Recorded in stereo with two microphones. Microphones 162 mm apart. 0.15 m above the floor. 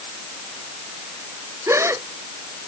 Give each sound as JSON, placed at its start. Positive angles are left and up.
{"t": 1.7, "sound": "a gasp", "side_deg": -15}